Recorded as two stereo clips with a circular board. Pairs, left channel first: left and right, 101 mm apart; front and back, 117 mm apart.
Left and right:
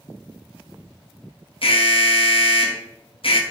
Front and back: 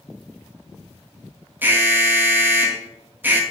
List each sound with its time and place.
1.6 s an alarm: 110° left, 0.9 m